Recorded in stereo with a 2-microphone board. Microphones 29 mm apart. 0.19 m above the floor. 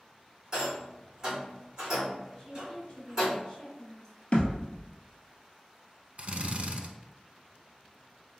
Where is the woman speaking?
30° left (ahead or behind), 1.8 m.